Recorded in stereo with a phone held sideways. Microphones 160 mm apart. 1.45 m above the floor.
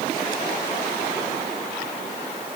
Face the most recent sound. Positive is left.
No sound to turn to.